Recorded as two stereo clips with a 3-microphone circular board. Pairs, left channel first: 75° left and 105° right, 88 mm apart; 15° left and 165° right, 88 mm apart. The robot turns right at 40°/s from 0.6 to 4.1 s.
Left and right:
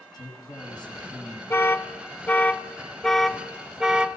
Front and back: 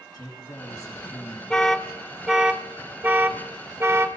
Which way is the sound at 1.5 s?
85° left.